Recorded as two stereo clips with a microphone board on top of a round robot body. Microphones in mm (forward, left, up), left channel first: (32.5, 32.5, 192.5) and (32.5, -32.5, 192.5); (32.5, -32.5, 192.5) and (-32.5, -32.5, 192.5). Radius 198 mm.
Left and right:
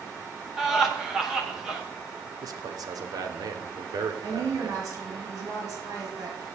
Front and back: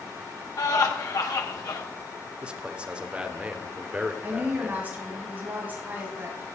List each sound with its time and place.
0.6 s laughter: 10° right, 2.5 m
2.4 s a man speaking: 105° right, 1.7 m
4.2 s a woman speaking: 115° right, 6.5 m